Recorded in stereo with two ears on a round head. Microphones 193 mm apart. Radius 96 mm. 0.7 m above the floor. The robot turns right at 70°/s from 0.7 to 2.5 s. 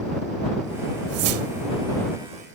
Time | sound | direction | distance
1.1 | a whoosh | 100° right | ?